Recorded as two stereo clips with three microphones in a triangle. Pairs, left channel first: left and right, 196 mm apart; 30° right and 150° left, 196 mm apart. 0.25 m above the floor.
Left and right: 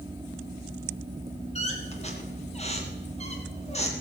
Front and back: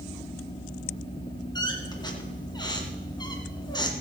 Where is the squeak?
35° left, 2 m.